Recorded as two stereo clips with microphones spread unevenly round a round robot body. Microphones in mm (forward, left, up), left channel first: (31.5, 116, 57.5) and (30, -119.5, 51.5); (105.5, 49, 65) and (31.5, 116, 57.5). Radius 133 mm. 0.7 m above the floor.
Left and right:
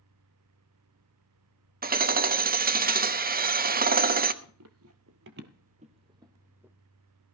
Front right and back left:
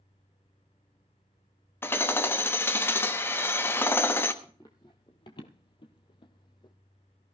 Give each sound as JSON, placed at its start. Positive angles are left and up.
{"t": 1.8, "sound": "hammering", "azimuth_deg": -105, "distance_m": 1.0}
{"t": 4.4, "sound": "running footsteps", "azimuth_deg": -115, "distance_m": 1.2}